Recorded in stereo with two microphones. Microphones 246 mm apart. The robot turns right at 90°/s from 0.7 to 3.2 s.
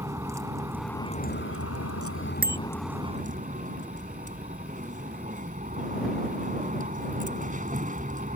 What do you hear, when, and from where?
0.0 s a vehicle: 10° right; by 8.4 s 145° right
2.4 s a bicycle bell: 35° right (ahead or behind); by 2.6 s 50° right (ahead or behind)